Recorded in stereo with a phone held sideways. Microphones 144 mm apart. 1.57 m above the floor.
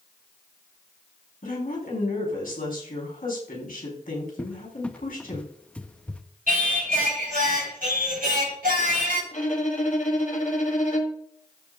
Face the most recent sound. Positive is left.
turn(degrees=60)  # may be behind; listen again after turning